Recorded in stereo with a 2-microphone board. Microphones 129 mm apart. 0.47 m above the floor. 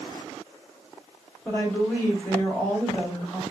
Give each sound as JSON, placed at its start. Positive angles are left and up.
{"t": 1.4, "sound": "a woman speaking", "side_deg": 15, "distance_m": 1.5}